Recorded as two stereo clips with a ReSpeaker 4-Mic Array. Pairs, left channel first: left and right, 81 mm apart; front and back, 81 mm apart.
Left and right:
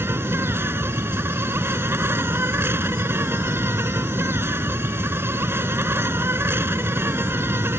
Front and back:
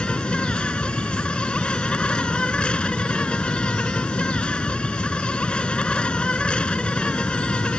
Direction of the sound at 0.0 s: 65° right.